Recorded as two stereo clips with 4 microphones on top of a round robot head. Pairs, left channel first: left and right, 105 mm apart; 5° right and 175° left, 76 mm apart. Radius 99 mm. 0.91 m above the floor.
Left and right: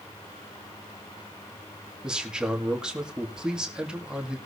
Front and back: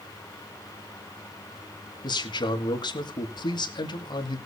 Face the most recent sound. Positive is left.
turn(degrees=-10)